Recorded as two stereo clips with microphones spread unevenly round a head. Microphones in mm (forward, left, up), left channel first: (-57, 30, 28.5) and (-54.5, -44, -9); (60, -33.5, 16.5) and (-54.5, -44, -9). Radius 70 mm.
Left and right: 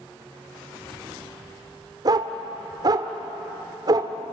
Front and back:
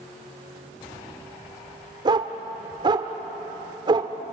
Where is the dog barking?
135° right, 1.5 m.